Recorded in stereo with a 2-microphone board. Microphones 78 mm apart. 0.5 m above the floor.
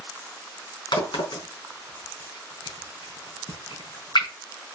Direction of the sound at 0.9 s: 75° left (ahead or behind).